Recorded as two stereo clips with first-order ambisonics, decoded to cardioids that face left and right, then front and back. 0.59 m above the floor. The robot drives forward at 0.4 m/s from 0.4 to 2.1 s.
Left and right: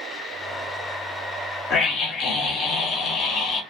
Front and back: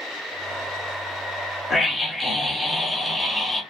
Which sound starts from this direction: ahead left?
A scream, at 1.7 s.